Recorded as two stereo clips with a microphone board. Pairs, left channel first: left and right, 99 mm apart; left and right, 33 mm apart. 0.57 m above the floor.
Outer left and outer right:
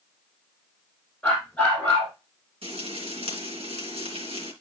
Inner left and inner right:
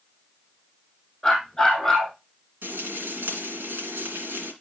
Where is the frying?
80° right, 3 m.